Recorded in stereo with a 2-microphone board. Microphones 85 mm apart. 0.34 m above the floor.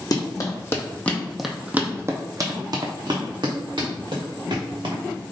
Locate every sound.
0.1 s running footsteps: 50° left (ahead or behind), 1.1 m; by 5.0 s 75° right (ahead or behind), 2.5 m